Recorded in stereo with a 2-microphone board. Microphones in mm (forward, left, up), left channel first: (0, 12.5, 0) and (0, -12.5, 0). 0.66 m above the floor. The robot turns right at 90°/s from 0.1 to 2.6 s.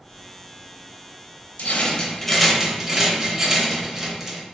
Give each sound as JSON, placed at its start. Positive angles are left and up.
{"t": 1.6, "sound": "a rattle", "azimuth_deg": 110, "distance_m": 0.7}